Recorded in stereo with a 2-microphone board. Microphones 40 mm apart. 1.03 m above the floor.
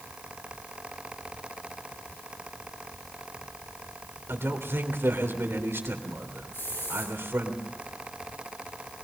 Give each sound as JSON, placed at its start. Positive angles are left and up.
{"t": 4.3, "sound": "a man speaking", "side_deg": -80, "distance_m": 3.5}
{"t": 6.5, "sound": "a hiss", "side_deg": 75, "distance_m": 9.5}